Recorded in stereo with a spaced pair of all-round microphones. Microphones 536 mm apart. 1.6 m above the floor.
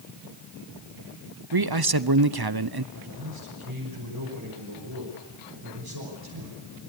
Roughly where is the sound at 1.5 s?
Right.